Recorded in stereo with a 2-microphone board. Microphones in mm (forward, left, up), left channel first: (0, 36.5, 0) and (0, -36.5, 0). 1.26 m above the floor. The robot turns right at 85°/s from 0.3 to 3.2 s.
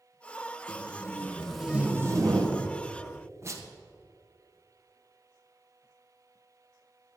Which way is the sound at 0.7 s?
65° left (ahead or behind).